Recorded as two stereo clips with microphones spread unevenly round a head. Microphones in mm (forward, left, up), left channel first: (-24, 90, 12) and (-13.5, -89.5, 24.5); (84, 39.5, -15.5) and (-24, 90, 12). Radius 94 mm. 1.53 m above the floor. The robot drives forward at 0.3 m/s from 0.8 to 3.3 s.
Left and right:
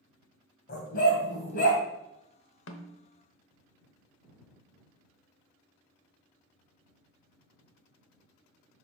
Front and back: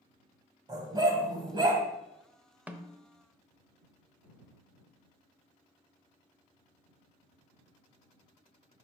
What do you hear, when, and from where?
0.7 s a dog barking: 125° left, 2 m; by 1.8 s 130° left, 2.5 m
2.7 s a snare drum: 75° left, 0.8 m; by 3.0 s 80° left, 0.8 m